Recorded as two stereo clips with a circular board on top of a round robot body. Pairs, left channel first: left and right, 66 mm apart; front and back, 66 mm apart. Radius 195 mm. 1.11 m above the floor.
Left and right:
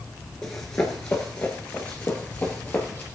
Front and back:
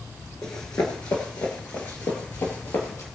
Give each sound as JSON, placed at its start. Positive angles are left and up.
{"t": 0.4, "sound": "running footsteps", "azimuth_deg": 35, "distance_m": 1.2}